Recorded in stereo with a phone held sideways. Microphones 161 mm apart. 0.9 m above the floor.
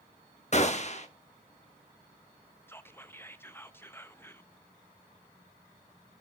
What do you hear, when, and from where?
0.5 s a gunshot: 45° left (ahead or behind), 0.8 m
2.7 s whispering: 15° left (ahead or behind), 0.6 m